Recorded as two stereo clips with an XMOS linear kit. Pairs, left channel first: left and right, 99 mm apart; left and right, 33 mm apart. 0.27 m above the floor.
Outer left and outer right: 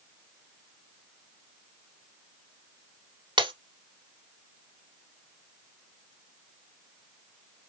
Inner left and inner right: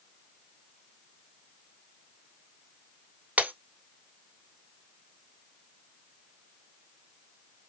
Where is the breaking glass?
50° right (ahead or behind), 0.8 m.